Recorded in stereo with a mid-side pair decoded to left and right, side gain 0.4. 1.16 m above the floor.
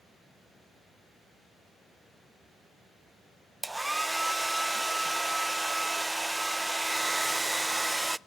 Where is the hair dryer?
15° right, 0.5 m.